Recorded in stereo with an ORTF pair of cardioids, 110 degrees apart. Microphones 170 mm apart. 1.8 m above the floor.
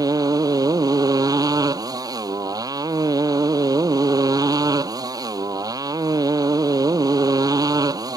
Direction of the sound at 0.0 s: 20° right.